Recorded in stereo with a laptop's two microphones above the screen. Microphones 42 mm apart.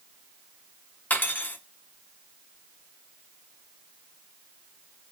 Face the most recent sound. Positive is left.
turn(degrees=45)  # may be behind; listen again after turning